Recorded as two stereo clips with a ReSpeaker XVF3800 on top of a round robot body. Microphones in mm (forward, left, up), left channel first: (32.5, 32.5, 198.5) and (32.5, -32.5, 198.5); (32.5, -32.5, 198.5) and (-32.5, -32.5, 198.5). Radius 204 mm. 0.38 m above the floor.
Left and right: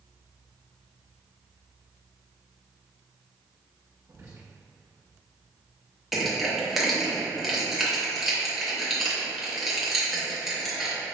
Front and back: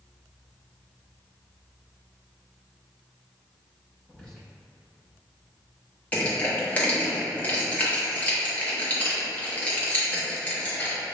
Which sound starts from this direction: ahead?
Crushing, at 6.1 s.